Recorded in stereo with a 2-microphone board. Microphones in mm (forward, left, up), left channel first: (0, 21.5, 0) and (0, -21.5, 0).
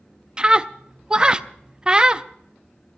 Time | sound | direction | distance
0.4 | a scream | 20° right (ahead or behind) | 0.5 m